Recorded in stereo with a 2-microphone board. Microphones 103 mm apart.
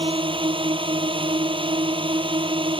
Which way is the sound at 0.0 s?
55° right (ahead or behind).